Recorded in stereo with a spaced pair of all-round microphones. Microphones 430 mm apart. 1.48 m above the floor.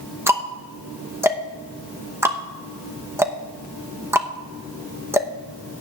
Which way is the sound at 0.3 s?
5° right (ahead or behind).